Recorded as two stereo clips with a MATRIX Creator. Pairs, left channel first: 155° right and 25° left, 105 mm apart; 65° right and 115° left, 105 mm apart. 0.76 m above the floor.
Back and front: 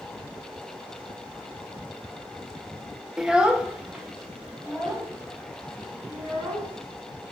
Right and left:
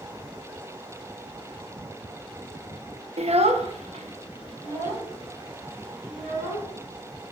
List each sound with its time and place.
3.2 s a child speaking: 110° left, 0.5 m; by 6.7 s 100° left, 5 m